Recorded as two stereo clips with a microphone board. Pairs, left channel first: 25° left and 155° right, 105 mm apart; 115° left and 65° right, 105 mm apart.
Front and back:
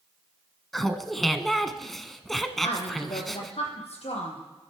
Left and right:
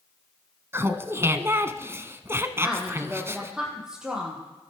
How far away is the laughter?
About 1.1 m.